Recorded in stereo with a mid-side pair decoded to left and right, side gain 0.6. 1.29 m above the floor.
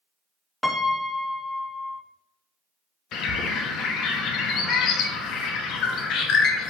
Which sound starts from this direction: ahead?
A piano, at 0.6 s.